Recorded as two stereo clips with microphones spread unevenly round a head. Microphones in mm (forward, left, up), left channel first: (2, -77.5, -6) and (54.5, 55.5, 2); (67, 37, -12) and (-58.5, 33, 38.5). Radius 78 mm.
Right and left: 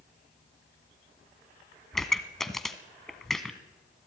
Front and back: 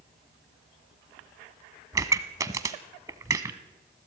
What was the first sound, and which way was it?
A pop, 160° left.